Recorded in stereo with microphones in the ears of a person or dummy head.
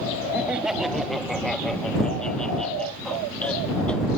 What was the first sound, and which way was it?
Laughter, 10° right (ahead or behind).